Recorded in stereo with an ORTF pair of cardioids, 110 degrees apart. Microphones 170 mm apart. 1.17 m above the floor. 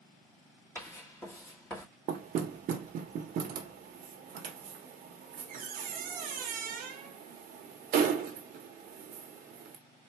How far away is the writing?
About 1.7 m.